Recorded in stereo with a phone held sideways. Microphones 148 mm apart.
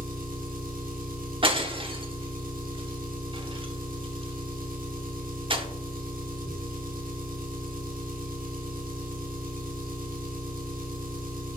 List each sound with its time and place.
0.0 s an engine running: 70° right (ahead or behind), 1.3 m
1.4 s breaking glass: 35° right (ahead or behind), 0.9 m